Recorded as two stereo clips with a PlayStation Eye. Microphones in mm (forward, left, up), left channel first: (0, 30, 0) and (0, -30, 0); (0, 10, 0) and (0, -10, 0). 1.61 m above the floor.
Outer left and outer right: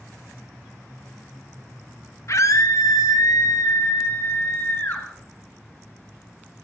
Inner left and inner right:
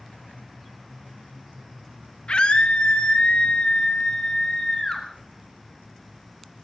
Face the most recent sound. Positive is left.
turn(degrees=30)  # may be behind; listen again after turning